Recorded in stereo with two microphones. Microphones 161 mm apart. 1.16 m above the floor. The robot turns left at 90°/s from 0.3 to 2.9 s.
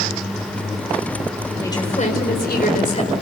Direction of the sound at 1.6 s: 165° left.